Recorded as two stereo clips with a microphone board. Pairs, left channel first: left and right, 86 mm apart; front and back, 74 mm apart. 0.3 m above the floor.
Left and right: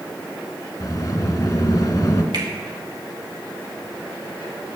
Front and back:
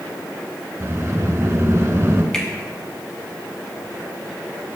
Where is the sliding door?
130° left, 1.2 m.